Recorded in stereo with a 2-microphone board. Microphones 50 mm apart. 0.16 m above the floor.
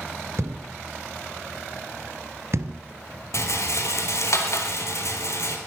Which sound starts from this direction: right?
A thud, at 0.4 s.